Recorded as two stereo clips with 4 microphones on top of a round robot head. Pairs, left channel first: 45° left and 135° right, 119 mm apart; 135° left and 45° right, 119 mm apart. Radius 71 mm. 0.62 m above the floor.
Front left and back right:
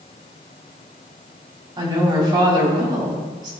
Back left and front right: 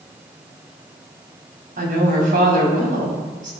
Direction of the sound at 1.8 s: 75° right.